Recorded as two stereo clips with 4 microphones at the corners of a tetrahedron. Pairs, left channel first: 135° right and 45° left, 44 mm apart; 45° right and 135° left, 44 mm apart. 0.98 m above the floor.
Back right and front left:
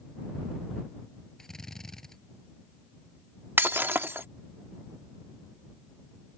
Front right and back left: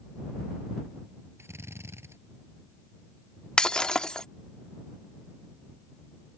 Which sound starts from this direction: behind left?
A drill, at 1.4 s.